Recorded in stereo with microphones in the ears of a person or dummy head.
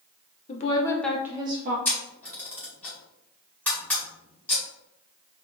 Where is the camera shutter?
10° left (ahead or behind), 1.8 m.